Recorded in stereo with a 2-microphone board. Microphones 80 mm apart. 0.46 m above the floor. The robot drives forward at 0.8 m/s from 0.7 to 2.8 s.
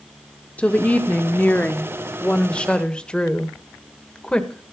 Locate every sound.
0.6 s a woman speaking: 15° left (ahead or behind), 1.0 m; by 4.7 s 10° left (ahead or behind), 1.5 m